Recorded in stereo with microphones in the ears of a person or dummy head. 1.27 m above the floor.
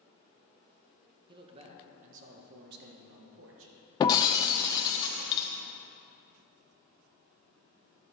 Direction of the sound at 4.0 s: 25° left (ahead or behind).